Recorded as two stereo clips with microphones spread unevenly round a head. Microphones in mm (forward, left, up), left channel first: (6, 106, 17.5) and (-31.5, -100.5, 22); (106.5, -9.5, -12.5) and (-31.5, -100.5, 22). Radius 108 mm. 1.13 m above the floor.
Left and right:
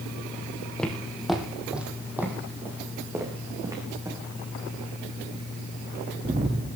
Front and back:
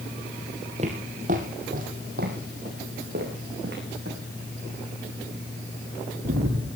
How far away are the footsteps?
About 2.5 m.